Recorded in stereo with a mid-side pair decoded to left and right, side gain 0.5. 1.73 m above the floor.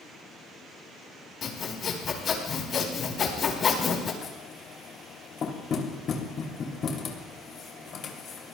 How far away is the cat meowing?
No cat meowing in this recording.